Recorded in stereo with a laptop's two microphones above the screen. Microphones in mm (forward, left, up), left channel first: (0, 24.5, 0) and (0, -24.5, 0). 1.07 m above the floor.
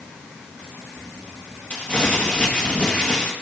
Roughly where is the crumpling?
Left.